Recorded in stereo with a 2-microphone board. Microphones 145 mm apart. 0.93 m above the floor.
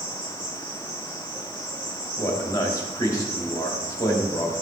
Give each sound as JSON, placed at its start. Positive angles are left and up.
{"t": 0.0, "sound": "an insect", "side_deg": -60, "distance_m": 5.0}
{"t": 2.2, "sound": "a man speaking", "side_deg": 25, "distance_m": 2.5}